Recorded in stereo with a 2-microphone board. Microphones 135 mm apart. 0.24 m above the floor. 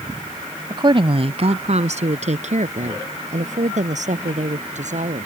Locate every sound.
0.7 s a woman speaking: 30° right (ahead or behind); by 5.2 s 65° right (ahead or behind)